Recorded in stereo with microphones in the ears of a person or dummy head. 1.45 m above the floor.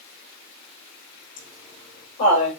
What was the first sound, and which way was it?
Laughter, 50° left (ahead or behind).